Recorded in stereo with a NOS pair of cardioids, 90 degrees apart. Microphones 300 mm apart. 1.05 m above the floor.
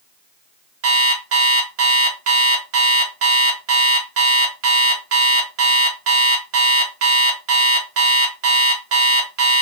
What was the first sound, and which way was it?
An alarm clock, 50° right.